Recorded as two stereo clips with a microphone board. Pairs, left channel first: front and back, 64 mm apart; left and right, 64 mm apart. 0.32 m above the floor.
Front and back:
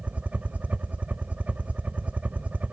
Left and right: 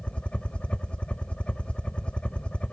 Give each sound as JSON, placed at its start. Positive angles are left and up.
{"t": 0.0, "sound": "a helicopter", "azimuth_deg": 140}